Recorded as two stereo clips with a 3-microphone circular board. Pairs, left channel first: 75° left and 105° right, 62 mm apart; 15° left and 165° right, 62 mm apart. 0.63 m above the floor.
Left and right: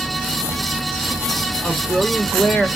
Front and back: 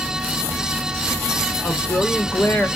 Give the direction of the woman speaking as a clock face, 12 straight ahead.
11 o'clock.